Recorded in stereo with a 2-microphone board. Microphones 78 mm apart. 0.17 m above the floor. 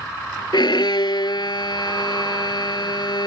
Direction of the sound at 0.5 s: 65° left (ahead or behind).